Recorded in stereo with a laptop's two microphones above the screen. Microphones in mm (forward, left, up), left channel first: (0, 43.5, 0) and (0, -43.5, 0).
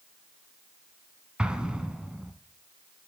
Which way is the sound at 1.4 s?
10° right (ahead or behind).